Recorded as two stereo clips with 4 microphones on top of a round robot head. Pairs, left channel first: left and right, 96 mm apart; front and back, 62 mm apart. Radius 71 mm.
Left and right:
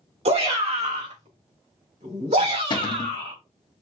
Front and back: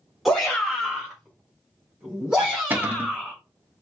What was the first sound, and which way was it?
A shout, 90° right.